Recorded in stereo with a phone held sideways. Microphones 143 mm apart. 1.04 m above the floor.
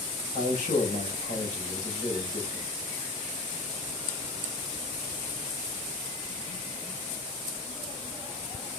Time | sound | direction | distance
0.3 | a man speaking | 75° left (ahead or behind) | 5 m